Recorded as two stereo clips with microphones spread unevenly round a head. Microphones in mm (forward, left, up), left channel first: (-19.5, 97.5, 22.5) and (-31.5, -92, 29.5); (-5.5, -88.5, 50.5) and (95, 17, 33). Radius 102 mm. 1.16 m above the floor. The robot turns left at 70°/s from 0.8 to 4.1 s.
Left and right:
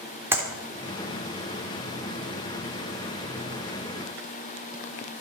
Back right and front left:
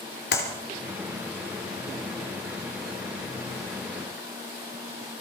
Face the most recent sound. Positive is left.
turn(degrees=-45)